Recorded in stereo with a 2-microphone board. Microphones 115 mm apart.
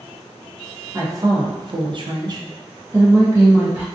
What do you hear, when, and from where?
0.9 s a woman speaking: 25° right (ahead or behind), 0.6 m; by 3.9 s 20° right (ahead or behind), 1.2 m